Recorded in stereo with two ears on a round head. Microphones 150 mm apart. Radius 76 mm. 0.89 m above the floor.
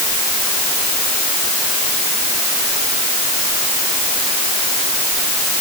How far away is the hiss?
No hiss in this recording.